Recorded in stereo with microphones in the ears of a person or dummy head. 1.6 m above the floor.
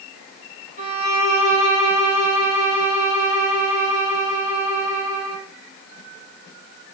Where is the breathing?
No breathing in this recording.